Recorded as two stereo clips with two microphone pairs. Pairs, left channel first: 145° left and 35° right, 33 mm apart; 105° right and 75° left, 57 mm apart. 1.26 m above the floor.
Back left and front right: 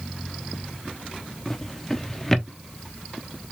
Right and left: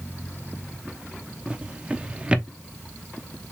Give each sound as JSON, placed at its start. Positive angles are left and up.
{"t": 1.5, "sound": "a drawer", "azimuth_deg": 95, "distance_m": 0.7}